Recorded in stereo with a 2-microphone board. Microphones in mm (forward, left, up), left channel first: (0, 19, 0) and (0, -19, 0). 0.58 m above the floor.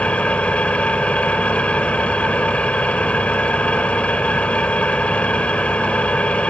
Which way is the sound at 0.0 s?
40° left (ahead or behind).